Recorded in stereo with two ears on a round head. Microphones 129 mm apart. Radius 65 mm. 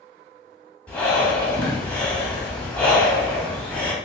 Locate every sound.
0.9 s breathing: 10° left (ahead or behind), 1.2 m